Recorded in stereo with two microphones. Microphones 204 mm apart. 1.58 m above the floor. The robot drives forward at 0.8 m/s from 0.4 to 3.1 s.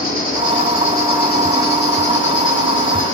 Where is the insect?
40° left (ahead or behind), 3.5 m; by 3.1 s 75° left (ahead or behind), 2 m.